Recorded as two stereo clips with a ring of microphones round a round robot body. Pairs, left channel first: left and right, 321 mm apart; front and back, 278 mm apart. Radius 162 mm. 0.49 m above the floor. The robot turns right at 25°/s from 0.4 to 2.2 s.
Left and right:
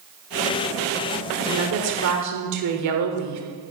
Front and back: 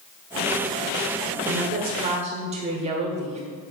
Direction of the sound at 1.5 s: 130° right.